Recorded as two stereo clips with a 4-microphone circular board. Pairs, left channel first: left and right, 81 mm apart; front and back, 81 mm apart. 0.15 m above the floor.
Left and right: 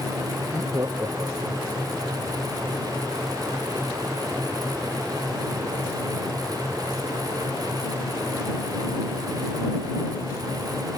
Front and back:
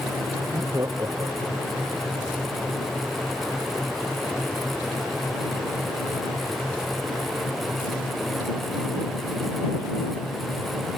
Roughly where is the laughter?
Behind right.